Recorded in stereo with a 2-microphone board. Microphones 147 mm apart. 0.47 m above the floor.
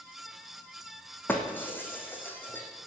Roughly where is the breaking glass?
Centre.